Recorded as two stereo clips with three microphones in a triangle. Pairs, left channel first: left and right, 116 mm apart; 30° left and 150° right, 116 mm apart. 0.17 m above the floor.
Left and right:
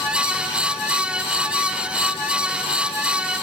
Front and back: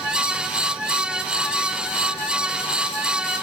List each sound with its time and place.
Only background noise.